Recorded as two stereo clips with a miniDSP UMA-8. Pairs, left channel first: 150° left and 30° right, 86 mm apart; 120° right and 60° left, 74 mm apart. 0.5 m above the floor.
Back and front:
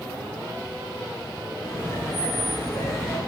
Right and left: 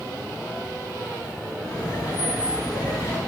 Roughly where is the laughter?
Behind right.